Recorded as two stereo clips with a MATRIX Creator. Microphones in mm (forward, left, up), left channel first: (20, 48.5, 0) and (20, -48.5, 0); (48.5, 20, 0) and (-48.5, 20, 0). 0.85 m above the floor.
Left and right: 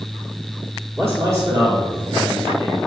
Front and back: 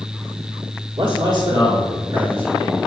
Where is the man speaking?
155° right, 1.6 m; by 2.8 s 105° right, 1.7 m.